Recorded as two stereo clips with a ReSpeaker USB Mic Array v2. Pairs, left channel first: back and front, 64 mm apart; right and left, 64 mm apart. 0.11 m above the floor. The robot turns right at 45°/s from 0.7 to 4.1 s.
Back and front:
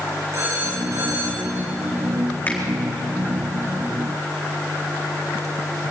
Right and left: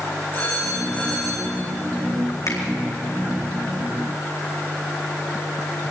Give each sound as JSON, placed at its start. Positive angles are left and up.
{"t": 0.3, "sound": "a phone ringing", "azimuth_deg": -40, "distance_m": 5.5}
{"t": 2.5, "sound": "a finger snap", "azimuth_deg": -115, "distance_m": 4.5}